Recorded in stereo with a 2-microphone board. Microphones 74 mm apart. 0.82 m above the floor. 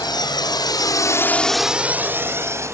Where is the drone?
75° left (ahead or behind); by 2.8 s 40° right (ahead or behind).